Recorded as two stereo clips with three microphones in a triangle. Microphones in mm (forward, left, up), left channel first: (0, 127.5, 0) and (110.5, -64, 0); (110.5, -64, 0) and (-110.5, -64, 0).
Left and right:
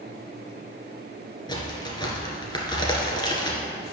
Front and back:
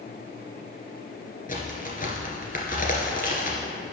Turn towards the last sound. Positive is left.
turn(degrees=50)